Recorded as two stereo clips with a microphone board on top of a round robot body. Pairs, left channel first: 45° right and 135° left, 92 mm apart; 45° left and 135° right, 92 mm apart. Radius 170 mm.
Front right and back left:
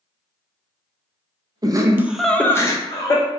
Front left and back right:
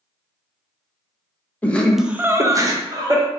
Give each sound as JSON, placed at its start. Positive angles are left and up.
{"t": 1.6, "sound": "laughter", "azimuth_deg": 110, "distance_m": 0.7}